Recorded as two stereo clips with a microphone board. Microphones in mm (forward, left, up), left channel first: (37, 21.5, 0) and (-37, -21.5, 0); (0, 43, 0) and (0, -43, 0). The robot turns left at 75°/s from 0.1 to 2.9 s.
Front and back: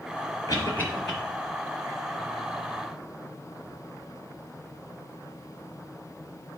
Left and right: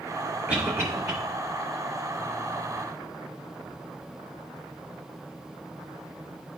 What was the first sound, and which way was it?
A cough, 10° right.